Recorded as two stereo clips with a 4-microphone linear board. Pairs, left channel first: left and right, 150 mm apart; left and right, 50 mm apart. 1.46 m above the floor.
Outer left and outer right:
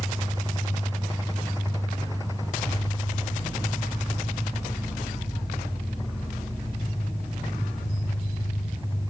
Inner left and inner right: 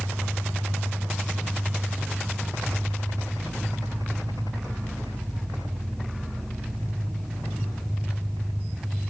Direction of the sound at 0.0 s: 25° left (ahead or behind).